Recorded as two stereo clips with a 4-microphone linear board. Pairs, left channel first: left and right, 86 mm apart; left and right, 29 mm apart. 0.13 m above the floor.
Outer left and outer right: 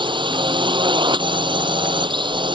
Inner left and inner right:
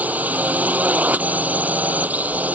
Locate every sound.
0.0 s a drone: 65° right (ahead or behind)